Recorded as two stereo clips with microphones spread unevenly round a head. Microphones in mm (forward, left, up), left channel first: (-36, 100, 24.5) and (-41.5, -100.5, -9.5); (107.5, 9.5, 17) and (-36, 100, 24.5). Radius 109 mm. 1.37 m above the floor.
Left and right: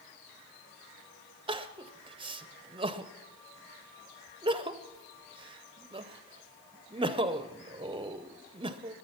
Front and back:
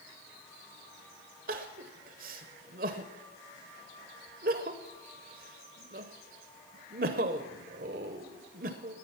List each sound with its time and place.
1.5 s crying: 160° right, 0.6 m